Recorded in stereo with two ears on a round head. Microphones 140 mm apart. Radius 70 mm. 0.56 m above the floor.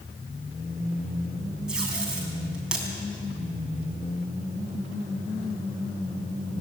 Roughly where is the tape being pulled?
Centre.